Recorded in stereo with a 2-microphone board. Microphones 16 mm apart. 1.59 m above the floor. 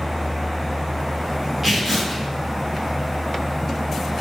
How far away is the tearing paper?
About 0.9 m.